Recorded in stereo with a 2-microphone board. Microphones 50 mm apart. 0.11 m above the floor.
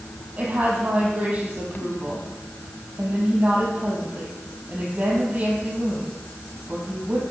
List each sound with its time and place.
0.4 s a woman speaking: 30° right (ahead or behind), 4 m